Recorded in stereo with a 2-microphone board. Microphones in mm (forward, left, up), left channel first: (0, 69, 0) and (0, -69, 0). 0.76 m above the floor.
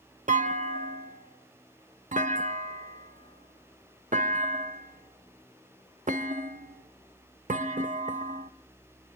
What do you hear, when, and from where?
0.3 s a clunk: 65° right (ahead or behind), 0.7 m